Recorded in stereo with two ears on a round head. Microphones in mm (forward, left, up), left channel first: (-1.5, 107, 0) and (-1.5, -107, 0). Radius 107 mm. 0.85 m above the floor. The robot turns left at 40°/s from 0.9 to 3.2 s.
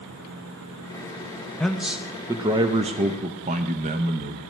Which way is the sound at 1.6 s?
5° left.